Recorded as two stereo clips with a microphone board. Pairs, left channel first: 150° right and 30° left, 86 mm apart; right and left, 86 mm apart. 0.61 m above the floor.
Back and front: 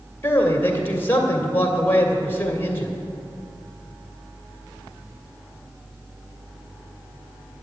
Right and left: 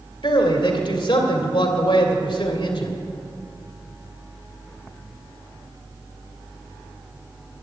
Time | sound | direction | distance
0.2 | a man speaking | 85° right | 2 m